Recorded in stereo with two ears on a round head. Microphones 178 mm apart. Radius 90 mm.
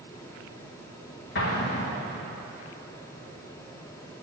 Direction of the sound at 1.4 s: 55° left (ahead or behind).